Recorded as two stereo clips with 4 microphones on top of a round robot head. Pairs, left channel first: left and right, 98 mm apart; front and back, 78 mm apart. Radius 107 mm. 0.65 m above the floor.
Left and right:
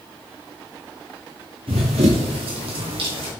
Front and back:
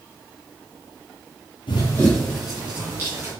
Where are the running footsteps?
45° right, 0.8 m; by 3.3 s 110° right, 2 m.